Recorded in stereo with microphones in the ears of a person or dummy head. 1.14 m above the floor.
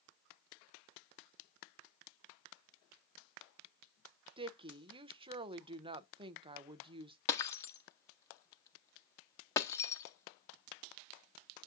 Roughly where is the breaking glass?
Left.